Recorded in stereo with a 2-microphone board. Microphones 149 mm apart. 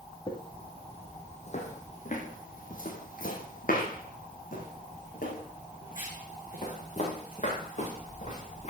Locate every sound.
0.3 s footsteps: 30° left (ahead or behind), 2.5 m; by 8.7 s 50° left (ahead or behind), 5.5 m